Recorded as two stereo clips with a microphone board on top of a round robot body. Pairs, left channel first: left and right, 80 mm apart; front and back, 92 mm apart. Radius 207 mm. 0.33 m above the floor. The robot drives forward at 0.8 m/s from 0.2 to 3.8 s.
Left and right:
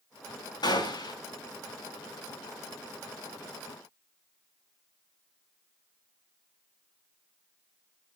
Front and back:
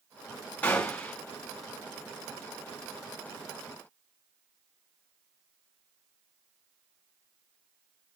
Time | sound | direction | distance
0.6 | a gunshot | 75° left | 6 m